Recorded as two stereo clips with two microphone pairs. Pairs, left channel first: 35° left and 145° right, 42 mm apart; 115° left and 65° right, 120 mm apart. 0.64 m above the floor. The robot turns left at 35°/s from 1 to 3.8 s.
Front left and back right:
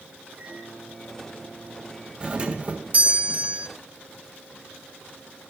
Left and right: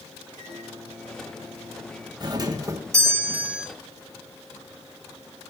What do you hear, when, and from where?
0.3 s a microwave: 70° right, 9.5 m; by 2.1 s 110° right, 9.5 m
2.2 s a doorbell: 90° right, 1.3 m; by 3.7 s 140° right, 1.3 m